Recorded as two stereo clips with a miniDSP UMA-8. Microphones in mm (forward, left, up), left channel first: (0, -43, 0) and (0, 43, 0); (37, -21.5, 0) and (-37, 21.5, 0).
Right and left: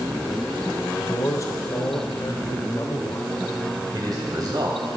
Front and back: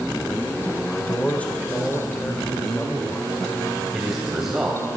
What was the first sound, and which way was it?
A man speaking, 95° right.